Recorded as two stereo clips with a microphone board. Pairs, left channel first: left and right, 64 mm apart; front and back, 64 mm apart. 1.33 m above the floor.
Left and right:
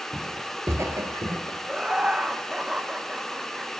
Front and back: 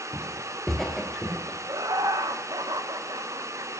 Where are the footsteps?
75° right, 1.3 m; by 1.6 s 90° right, 2.5 m.